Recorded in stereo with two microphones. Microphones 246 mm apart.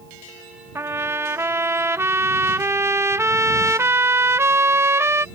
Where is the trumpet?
10° right (ahead or behind).